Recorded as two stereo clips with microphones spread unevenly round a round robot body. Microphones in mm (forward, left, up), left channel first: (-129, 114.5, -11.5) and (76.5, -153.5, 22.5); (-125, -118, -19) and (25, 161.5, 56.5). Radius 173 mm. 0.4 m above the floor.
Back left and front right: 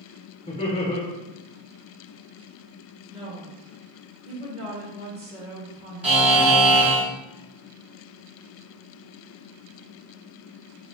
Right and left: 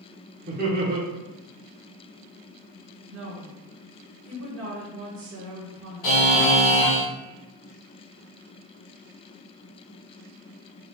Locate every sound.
0.5 s laughter: 115° left, 0.9 m
3.1 s a woman speaking: 20° left, 1.2 m
6.0 s a buzzer: 140° right, 1.8 m